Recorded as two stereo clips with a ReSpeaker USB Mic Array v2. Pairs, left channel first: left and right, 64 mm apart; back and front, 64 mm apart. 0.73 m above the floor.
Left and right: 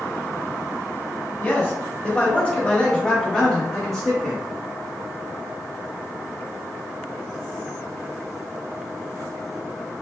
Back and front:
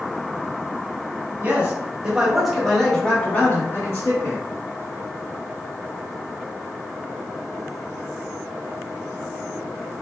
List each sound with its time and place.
1.4 s a man speaking: 40° left, 1.3 m; by 4.5 s straight behind, 1.4 m